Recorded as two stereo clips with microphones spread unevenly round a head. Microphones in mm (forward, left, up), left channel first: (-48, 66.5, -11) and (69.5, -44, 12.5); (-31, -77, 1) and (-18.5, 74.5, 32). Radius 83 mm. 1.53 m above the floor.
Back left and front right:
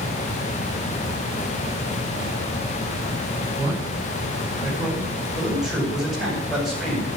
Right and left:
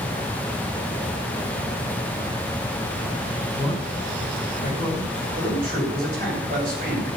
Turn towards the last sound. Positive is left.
turn(degrees=45)